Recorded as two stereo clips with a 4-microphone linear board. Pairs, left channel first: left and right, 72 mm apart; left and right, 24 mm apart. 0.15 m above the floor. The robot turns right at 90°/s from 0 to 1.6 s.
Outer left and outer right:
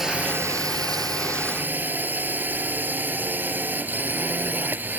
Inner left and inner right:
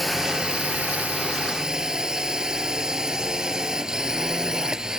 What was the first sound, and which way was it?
A drone, 175° right.